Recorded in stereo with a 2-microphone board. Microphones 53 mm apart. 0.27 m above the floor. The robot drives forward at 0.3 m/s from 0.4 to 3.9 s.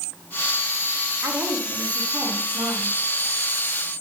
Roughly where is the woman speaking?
Right.